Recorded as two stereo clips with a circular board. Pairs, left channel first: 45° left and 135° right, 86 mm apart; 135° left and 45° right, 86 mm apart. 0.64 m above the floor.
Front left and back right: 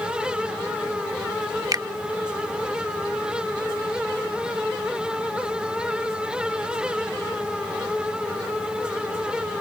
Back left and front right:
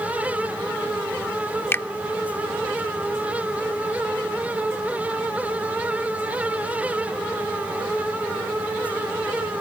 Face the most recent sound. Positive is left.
turn(degrees=-165)